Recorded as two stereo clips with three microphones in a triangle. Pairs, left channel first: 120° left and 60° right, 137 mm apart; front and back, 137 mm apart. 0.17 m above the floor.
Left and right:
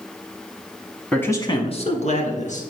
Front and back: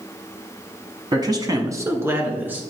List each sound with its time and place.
1.1 s a man speaking: 165° right, 1.1 m; by 2.6 s 105° left, 2.5 m